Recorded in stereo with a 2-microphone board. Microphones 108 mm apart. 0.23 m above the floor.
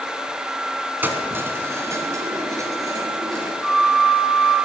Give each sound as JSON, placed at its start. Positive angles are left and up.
{"t": 1.0, "sound": "keys jangling", "side_deg": -15, "distance_m": 1.8}
{"t": 3.6, "sound": "a flute", "side_deg": 0, "distance_m": 8.0}